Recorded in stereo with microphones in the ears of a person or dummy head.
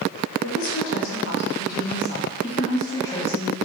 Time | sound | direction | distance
0.4 | a woman speaking | 85° left | 1.4 m